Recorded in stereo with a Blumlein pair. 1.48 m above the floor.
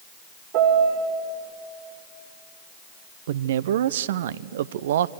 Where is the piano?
45° right, 3 m.